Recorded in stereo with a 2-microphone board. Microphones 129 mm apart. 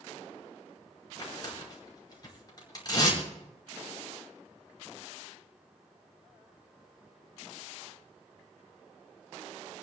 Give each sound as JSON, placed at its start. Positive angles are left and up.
{"t": 1.2, "sound": "tearing paper", "side_deg": 30, "distance_m": 5.0}